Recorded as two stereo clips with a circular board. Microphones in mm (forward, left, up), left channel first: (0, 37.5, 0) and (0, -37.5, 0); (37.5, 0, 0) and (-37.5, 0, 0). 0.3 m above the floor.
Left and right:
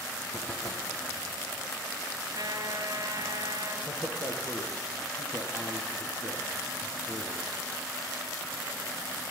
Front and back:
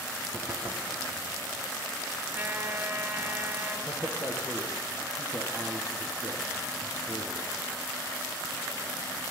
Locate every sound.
0.3 s knocking: 140° left, 2.5 m
2.3 s a trumpet: 125° right, 3.5 m
3.9 s a man speaking: 130° left, 6 m